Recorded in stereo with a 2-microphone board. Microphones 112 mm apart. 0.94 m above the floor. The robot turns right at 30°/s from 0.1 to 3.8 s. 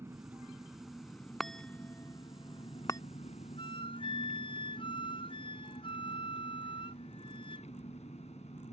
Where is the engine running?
20° right; by 8.7 s 90° left.